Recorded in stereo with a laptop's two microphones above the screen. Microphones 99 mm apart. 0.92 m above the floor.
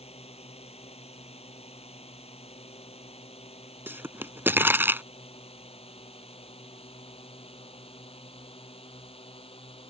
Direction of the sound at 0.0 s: 85° left.